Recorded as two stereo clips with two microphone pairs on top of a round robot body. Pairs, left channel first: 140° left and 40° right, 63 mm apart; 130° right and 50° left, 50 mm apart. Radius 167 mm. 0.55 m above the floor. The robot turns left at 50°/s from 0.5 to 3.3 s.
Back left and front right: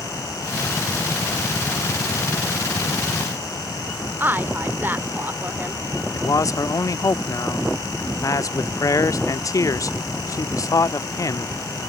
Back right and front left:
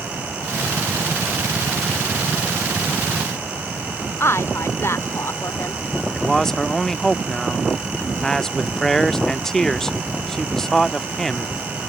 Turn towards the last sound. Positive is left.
turn(degrees=150)